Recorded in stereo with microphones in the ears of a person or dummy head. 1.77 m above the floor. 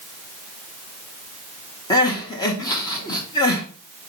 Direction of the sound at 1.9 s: 20° left (ahead or behind).